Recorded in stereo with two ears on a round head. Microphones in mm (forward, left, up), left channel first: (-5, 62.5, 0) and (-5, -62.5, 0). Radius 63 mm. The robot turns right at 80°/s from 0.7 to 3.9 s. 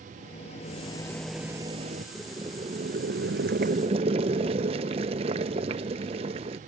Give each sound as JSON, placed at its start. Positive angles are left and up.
{"t": 0.2, "sound": "a rattle", "azimuth_deg": 130}
{"t": 2.1, "sound": "boiling", "azimuth_deg": 180}